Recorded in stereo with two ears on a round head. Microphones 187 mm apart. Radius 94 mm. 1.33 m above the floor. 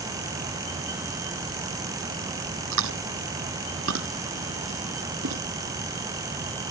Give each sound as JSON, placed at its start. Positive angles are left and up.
{"t": 2.7, "sound": "chewing", "side_deg": -65}